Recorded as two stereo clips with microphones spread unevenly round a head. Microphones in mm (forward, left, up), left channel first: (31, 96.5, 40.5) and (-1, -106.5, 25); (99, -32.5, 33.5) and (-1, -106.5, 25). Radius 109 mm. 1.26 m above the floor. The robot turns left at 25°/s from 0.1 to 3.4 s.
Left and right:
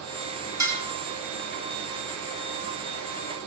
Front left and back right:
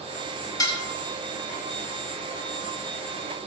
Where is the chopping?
No chopping in this recording.